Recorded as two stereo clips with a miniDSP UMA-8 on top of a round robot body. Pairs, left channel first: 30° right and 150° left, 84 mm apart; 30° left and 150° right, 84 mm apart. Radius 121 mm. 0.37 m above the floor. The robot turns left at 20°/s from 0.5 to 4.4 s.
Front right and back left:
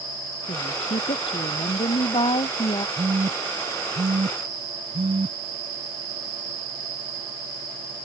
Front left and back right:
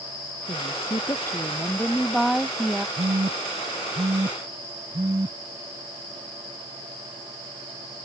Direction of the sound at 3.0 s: 165° right.